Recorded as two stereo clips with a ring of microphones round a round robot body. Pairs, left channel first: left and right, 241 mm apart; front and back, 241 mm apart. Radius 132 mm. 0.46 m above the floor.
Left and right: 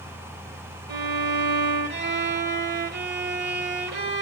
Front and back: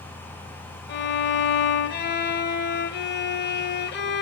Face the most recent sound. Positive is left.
turn(degrees=-45)